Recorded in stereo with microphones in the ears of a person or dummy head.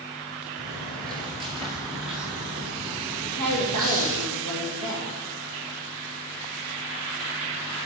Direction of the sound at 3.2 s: 80° right.